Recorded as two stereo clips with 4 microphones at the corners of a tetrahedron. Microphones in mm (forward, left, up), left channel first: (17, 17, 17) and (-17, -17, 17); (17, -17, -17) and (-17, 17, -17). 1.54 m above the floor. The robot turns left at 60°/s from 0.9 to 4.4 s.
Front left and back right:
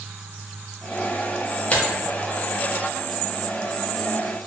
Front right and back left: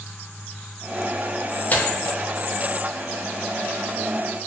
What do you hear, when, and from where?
1.7 s tearing paper: 5° right, 0.5 m; by 1.9 s 10° right, 0.5 m